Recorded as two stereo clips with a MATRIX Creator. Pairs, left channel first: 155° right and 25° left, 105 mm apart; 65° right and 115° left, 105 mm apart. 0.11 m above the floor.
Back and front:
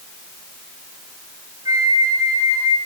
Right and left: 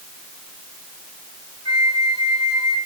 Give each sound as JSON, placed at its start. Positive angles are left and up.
{"t": 1.6, "sound": "a flute", "azimuth_deg": -30, "distance_m": 3.5}